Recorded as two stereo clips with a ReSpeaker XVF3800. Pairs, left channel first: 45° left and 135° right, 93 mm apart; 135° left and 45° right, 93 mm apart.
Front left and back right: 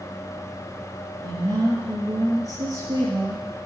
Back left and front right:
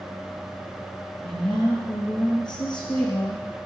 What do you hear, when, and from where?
1.2 s a woman speaking: 175° left, 4 m